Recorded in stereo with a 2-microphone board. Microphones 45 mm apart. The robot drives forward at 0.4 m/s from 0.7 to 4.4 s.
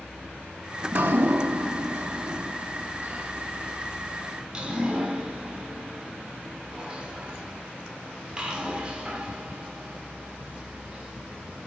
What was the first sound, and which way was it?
Dripping, 50° right (ahead or behind).